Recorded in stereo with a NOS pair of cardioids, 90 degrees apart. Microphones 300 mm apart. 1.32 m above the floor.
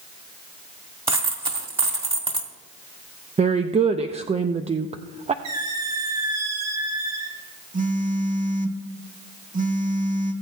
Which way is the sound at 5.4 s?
65° right.